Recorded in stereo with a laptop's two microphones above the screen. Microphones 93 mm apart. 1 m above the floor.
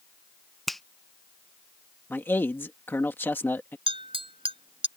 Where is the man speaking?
25° left (ahead or behind).